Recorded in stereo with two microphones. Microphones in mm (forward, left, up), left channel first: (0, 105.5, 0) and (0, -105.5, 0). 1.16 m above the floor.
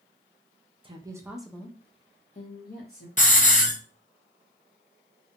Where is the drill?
I don't hear a drill.